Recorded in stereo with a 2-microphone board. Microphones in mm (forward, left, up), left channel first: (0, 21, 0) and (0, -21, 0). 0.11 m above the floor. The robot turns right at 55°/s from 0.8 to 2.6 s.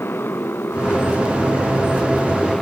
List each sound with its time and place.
0.0 s a motorcycle: 70° left; by 2.6 s 165° left